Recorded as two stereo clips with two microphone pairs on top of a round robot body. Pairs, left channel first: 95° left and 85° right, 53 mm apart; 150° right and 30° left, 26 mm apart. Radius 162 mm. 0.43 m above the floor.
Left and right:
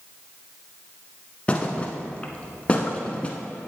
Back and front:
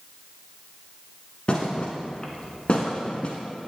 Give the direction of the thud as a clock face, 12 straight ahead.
6 o'clock.